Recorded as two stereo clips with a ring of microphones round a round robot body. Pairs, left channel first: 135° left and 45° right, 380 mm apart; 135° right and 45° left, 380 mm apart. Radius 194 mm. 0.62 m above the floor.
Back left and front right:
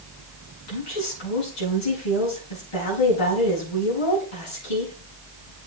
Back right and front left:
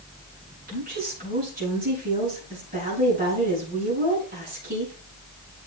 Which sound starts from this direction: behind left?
A woman speaking, at 0.7 s.